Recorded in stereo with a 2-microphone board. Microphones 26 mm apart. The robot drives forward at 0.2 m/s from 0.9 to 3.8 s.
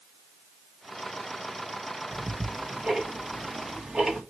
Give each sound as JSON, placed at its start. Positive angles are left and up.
{"t": 2.1, "sound": "ticking", "side_deg": -30, "distance_m": 1.8}